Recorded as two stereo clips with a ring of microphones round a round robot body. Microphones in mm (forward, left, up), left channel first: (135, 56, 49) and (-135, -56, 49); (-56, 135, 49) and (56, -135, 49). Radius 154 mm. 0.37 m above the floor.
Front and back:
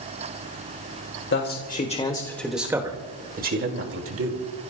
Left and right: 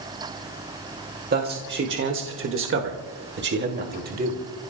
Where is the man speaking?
20° right, 1.8 m; by 4.5 s 125° right, 2.5 m.